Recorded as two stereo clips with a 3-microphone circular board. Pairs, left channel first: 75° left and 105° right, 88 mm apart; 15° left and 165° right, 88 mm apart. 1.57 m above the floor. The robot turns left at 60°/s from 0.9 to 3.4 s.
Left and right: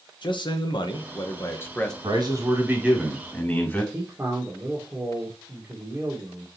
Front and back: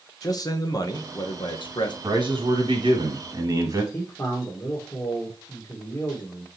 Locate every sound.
0.2 s a man speaking: 55° left, 1.1 m; by 1.9 s 5° right, 1.1 m
2.0 s a man speaking: 130° right, 2 m; by 3.8 s 150° left, 2 m
3.9 s a man speaking: 40° right, 1.4 m